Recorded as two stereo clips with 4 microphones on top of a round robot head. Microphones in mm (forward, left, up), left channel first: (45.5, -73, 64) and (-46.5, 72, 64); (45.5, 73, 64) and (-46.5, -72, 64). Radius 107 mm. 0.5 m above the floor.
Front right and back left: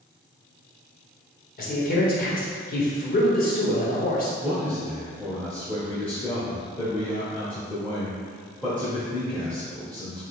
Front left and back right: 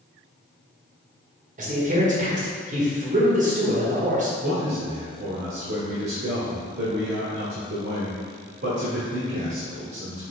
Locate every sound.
1.6 s a man speaking: 85° right, 1.4 m
4.4 s a man speaking: 135° right, 1.3 m